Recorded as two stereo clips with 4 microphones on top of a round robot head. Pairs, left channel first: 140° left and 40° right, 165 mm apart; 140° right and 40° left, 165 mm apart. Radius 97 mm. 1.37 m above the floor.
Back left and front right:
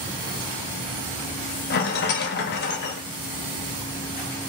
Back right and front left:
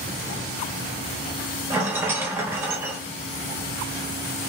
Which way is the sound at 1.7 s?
115° left.